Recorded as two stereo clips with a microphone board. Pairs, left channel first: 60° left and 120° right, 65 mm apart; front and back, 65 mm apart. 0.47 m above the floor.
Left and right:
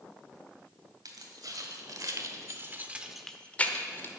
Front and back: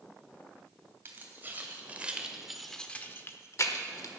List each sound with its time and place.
1.1 s keys jangling: 125° right, 2.5 m; by 4.1 s 15° left, 1.5 m